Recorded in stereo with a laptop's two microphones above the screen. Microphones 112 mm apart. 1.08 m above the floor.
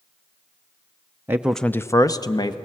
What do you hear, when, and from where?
1.3 s a man speaking: 20° right (ahead or behind), 0.5 m; by 2.5 s 40° left (ahead or behind), 1.3 m